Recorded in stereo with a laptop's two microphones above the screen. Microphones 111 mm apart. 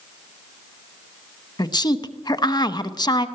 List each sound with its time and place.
1.6 s a woman speaking: 40° left (ahead or behind), 0.9 m